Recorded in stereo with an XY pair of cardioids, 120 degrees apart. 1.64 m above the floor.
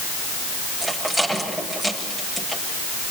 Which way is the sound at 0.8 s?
5° left.